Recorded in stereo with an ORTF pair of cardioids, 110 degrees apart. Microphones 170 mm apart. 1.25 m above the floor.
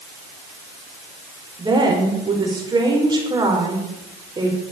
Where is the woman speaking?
25° right, 5 m.